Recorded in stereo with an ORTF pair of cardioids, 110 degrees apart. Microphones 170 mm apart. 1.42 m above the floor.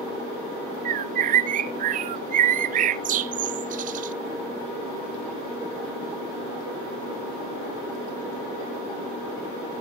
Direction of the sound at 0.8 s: 50° right.